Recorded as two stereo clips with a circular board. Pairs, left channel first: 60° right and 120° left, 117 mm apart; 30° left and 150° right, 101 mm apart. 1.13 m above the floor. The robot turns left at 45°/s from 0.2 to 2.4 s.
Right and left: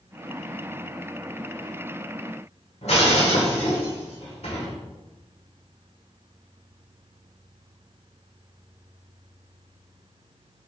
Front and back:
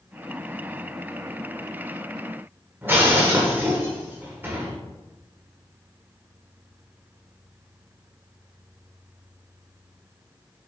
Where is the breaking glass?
80° right, 1.7 m.